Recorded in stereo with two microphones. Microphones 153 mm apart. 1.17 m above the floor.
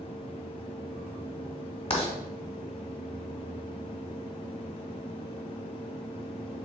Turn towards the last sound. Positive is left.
turn(degrees=40)  # may be behind; listen again after turning